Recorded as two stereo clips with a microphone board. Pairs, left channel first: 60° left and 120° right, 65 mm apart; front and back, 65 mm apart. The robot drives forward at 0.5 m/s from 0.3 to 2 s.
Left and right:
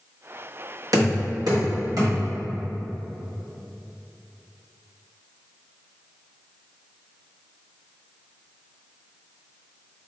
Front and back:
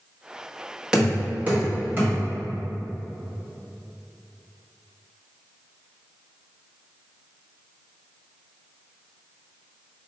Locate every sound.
0.9 s knocking: 105° right, 1.2 m; by 2.2 s 125° right, 1.4 m